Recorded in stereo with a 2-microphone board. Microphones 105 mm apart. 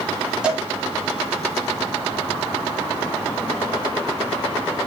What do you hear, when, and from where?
0.4 s a cowbell: 5° right (ahead or behind), 1.8 m